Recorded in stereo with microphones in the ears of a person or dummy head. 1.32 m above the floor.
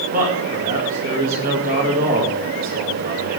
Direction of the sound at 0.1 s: 40° right (ahead or behind).